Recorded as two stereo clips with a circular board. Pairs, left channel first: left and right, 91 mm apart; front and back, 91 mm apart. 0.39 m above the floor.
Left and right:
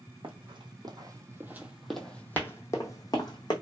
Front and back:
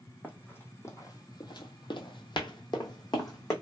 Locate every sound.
0.2 s running footsteps: 70° right, 1.0 m; by 3.5 s 50° left, 1.2 m